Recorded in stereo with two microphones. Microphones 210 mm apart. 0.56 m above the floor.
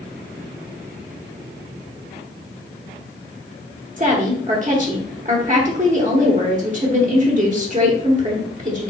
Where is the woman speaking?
40° right (ahead or behind), 0.9 m.